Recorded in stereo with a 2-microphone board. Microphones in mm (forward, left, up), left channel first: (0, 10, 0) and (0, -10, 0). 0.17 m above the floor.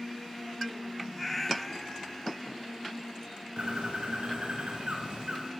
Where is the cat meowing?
10° left (ahead or behind), 1.3 m; by 2.4 s 35° left (ahead or behind), 0.9 m.